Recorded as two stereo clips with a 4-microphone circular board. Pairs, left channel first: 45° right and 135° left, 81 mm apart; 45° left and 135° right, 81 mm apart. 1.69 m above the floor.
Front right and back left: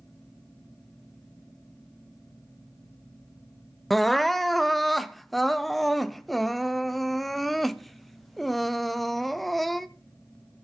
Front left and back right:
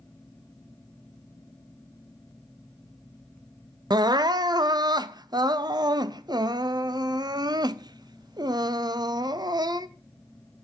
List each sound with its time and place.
3.9 s crying: 135° right, 0.5 m